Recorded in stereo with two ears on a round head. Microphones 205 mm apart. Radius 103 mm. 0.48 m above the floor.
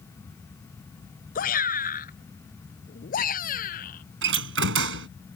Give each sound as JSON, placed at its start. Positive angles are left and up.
{"t": 1.4, "sound": "a shout", "side_deg": 40}
{"t": 4.2, "sound": "a door slam", "side_deg": -55}